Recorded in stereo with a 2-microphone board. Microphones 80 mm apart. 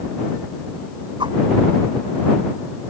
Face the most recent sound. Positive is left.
turn(degrees=-80)